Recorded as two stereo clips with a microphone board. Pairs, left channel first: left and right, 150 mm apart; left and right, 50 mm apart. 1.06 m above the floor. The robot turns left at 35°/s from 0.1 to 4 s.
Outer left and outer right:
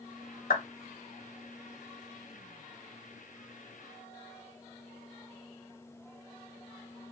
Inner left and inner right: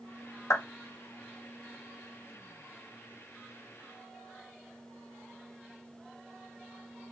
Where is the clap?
85° left, 3 m; by 0.7 s 80° left, 3 m.